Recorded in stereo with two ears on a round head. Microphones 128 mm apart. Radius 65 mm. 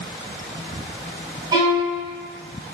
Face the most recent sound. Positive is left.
turn(degrees=-30)  # may be behind; listen again after turning